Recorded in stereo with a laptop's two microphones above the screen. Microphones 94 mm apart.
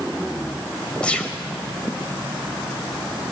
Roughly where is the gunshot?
Centre.